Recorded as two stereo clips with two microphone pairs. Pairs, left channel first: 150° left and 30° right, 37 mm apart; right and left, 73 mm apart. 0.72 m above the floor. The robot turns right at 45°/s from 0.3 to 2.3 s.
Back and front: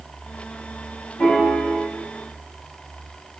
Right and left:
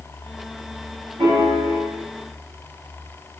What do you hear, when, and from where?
1.2 s a piano: 130° left, 2.5 m; by 1.8 s 160° left, 2.5 m